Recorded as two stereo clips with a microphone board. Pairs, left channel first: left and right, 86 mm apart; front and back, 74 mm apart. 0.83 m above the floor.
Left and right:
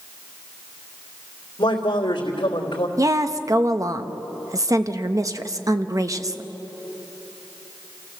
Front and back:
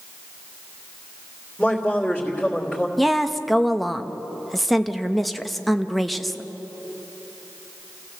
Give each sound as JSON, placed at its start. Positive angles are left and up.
{"t": 1.6, "sound": "a man speaking", "azimuth_deg": 90, "distance_m": 3.0}
{"t": 3.0, "sound": "a woman speaking", "azimuth_deg": -85, "distance_m": 0.8}